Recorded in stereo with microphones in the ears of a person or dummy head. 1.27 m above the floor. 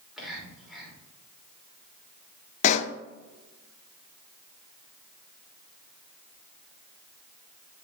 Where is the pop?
45° left (ahead or behind), 0.5 m.